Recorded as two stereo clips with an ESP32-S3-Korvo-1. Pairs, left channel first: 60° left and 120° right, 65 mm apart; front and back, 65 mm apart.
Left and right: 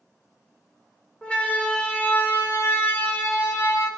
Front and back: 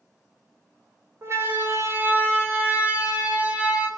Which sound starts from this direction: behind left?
A siren, at 1.2 s.